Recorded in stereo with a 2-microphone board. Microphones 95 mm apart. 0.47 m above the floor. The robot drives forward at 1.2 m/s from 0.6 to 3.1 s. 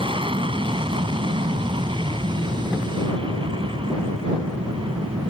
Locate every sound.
0.0 s an aircraft: 65° right (ahead or behind); by 5.3 s 70° right (ahead or behind)